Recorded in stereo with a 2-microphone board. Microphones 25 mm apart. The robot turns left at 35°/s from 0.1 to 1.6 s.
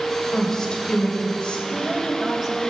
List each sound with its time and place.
0.3 s a woman speaking: 165° left, 2 m; by 1.6 s 120° left, 2 m
1.7 s a woman speaking: 20° right (ahead or behind), 2 m